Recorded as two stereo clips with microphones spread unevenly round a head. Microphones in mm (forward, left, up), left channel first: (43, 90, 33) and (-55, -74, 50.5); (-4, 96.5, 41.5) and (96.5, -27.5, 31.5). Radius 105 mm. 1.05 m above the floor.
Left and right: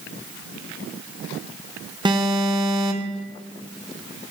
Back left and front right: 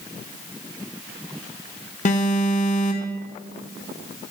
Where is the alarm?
170° left, 1.5 m.